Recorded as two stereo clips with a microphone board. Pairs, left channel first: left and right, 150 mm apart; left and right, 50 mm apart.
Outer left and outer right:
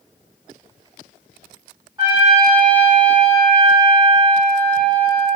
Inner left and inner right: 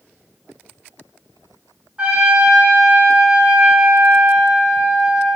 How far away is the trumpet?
About 1.3 m.